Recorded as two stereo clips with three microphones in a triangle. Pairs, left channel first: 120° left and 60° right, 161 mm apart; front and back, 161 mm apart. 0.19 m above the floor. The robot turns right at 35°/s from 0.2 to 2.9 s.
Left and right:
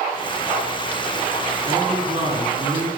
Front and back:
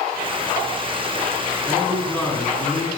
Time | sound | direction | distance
1.7 | a man speaking | 95° right | 2.5 m